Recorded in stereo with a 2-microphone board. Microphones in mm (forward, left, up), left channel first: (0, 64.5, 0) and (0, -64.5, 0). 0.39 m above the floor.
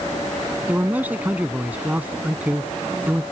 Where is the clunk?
No clunk in this recording.